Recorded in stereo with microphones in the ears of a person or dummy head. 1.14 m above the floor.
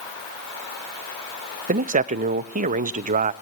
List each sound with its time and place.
1.7 s a man speaking: 40° right (ahead or behind), 0.9 m